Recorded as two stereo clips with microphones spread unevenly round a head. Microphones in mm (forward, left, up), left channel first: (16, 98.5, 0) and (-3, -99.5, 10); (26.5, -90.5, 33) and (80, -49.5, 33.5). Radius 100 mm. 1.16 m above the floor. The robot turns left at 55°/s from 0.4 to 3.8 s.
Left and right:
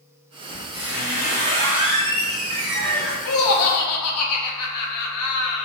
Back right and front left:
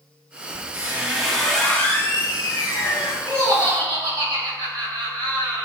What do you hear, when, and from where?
0.5 s a squeak: 10° right, 1.4 m; by 3.1 s 155° right, 1.4 m
3.2 s laughter: 110° left, 0.7 m; by 5.7 s 80° left, 0.7 m